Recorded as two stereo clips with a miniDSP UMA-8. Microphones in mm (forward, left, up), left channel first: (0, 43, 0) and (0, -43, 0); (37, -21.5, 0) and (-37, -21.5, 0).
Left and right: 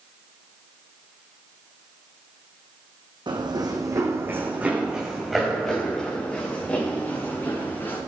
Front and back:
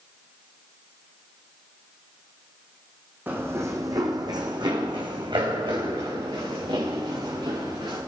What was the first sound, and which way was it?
Running footsteps, 115° right.